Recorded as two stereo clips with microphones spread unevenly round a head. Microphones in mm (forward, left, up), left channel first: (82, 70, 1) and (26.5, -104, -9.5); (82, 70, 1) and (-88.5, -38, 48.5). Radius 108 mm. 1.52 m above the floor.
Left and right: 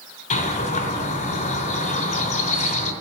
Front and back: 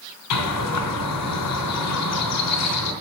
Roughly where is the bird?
Ahead left.